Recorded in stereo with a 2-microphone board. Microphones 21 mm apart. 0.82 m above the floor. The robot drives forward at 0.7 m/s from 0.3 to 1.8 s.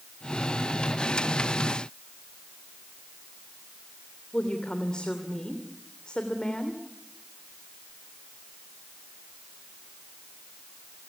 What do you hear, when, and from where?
4.3 s a woman speaking: 40° left (ahead or behind), 3 m